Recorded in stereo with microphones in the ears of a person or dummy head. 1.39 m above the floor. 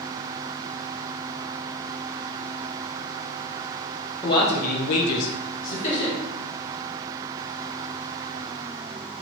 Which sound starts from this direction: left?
A man speaking, at 4.2 s.